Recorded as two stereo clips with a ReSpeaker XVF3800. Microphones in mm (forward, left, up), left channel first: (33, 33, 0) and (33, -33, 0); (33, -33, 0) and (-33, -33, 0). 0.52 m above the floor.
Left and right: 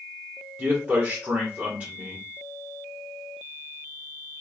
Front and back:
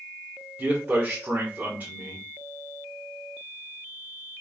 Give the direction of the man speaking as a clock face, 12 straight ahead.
5 o'clock.